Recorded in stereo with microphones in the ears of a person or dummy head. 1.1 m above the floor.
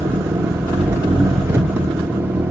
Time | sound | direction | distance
0.0 | an engine running | 15° right (ahead or behind) | 0.8 m